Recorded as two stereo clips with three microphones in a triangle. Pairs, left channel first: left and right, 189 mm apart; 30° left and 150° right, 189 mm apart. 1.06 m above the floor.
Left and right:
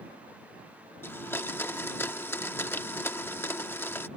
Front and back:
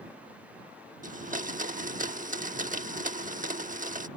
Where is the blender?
170° left.